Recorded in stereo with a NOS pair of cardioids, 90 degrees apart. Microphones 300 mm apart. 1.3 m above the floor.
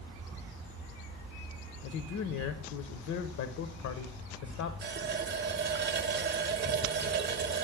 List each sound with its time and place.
1.8 s a man speaking: 65° left, 0.7 m
4.8 s a running tap: 40° right, 0.8 m